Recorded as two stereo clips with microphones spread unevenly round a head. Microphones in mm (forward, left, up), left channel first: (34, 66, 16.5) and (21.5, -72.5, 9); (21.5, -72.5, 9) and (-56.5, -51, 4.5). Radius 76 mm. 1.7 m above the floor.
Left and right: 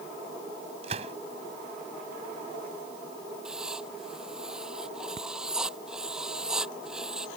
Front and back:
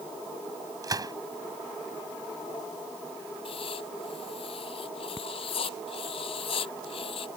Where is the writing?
10° right.